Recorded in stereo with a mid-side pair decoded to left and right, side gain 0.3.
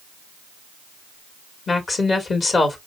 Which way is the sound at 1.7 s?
60° left.